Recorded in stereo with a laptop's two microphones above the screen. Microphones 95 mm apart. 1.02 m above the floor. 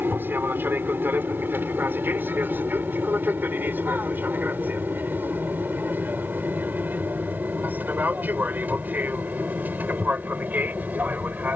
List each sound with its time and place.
0.0 s an aircraft: 20° right (ahead or behind)